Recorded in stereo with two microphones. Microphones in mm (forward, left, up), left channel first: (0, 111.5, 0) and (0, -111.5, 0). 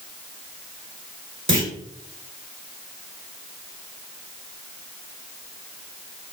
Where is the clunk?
60° right (ahead or behind), 1.8 m.